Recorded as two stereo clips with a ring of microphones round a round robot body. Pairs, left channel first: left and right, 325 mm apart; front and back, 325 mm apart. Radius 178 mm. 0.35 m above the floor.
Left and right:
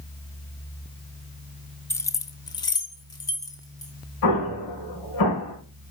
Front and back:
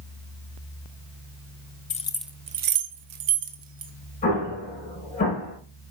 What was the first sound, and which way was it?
Keys jangling, 20° left.